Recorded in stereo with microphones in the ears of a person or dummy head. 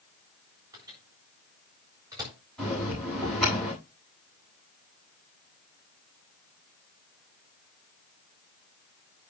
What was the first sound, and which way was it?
A microwave, 20° right (ahead or behind).